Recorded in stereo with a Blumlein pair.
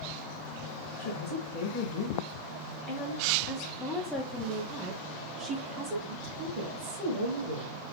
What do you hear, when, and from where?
1.0 s a woman speaking: 65° left, 1.9 m; by 7.7 s 55° right, 2 m